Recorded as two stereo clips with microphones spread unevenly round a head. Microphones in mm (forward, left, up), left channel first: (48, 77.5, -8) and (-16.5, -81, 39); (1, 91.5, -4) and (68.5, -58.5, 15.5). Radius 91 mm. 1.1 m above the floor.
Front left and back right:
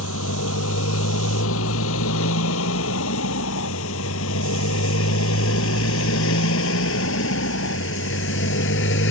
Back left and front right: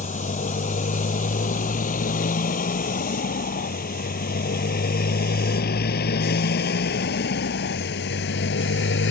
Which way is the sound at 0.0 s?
70° left.